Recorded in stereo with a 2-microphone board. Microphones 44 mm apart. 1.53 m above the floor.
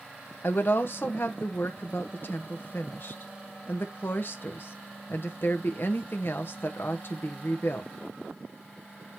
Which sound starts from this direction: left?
A woman speaking, at 0.4 s.